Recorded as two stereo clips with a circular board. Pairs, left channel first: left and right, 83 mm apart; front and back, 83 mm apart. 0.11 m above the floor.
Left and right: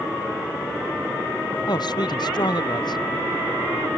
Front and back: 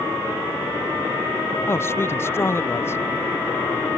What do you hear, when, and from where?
1.7 s a man speaking: 60° left